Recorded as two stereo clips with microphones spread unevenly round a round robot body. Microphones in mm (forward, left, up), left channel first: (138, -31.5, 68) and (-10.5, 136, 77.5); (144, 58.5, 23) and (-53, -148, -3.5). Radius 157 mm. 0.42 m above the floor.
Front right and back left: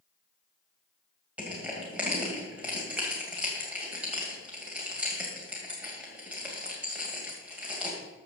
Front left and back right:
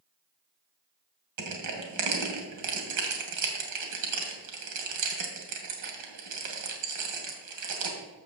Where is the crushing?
145° right, 2 m.